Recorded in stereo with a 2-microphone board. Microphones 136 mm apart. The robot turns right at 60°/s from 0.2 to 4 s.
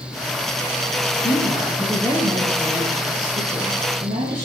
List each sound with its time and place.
1.2 s a woman speaking: 125° left, 5 m; by 4.5 s 70° right, 5 m